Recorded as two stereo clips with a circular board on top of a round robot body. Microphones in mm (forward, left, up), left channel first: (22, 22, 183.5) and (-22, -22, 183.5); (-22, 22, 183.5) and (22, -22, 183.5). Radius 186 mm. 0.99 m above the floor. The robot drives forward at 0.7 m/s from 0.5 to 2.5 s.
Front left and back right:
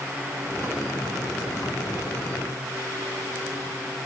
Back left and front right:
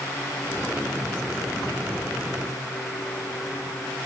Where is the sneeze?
No sneeze in this recording.